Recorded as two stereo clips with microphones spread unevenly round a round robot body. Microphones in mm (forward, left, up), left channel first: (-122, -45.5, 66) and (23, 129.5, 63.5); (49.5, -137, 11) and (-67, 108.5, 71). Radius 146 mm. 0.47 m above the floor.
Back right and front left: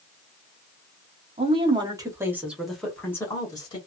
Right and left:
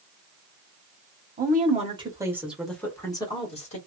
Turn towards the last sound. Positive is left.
turn(degrees=-70)